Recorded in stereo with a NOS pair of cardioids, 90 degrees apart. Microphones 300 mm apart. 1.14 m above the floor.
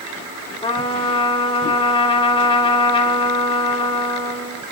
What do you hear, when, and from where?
0.6 s a trumpet: 15° left, 1.5 m